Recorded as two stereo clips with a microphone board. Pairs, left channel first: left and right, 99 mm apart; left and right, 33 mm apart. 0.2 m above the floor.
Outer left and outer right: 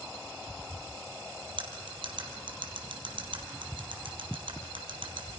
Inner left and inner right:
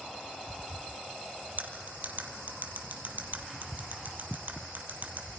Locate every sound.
1.6 s cutlery clinking: 55° right (ahead or behind), 3.5 m